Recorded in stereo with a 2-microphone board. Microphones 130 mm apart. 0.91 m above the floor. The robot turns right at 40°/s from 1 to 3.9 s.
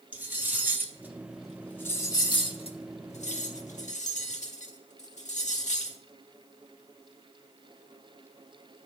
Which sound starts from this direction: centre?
Cutlery clinking, at 0.1 s.